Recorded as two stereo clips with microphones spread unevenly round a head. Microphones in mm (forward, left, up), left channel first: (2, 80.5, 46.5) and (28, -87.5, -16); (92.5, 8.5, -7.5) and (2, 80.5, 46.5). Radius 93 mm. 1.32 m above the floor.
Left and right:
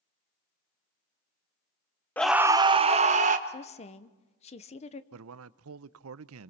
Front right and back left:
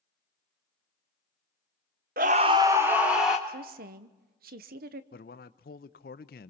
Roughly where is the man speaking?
Right.